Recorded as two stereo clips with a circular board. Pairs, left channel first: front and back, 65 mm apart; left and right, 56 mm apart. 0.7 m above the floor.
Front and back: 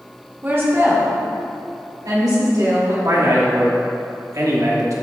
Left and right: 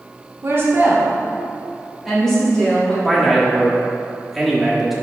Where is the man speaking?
175° right, 1.4 m.